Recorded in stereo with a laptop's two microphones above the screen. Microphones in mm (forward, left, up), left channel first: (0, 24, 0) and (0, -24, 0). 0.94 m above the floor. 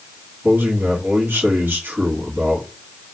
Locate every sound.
0.4 s a man speaking: 60° right (ahead or behind), 1.8 m